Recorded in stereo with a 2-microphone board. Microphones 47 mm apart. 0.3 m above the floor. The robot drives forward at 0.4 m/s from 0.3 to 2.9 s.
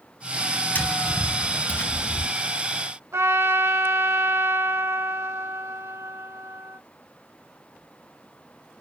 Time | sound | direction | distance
0.8 | tapping | 45° left (ahead or behind) | 3.5 m
3.1 | a trumpet | 80° right | 1.2 m